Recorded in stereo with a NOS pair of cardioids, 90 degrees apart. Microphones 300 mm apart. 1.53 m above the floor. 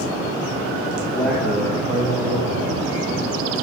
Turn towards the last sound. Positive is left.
turn(degrees=-25)